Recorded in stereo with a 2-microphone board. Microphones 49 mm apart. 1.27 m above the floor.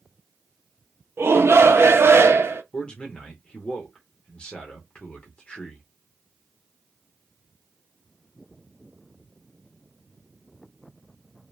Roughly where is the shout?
Right.